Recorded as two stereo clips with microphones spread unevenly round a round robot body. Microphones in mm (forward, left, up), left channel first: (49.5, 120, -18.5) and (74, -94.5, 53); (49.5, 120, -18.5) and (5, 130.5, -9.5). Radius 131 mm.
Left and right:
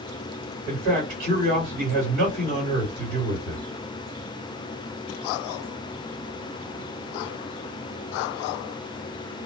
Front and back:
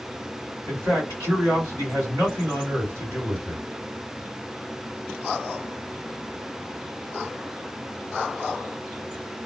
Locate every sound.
0.7 s a man speaking: 145° right, 2.5 m